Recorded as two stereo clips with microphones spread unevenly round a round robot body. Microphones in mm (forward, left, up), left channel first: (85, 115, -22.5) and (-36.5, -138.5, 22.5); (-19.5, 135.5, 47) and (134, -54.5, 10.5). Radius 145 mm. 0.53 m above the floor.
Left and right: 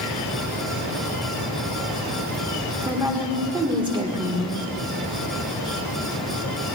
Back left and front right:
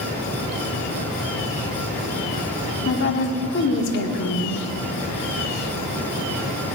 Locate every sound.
2.9 s a woman speaking: 165° left, 1.6 m